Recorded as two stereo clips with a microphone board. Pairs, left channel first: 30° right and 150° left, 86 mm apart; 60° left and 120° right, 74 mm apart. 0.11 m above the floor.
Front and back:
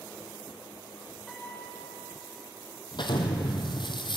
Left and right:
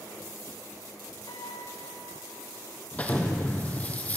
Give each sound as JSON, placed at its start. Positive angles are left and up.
{"t": 1.3, "sound": "a piano", "azimuth_deg": 60, "distance_m": 6.0}
{"t": 2.9, "sound": "an explosion", "azimuth_deg": -10, "distance_m": 1.5}